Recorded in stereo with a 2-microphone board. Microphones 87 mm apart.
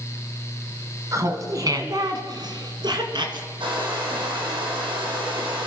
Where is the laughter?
40° right (ahead or behind), 1.6 m; by 3.5 s 60° right (ahead or behind), 2.5 m.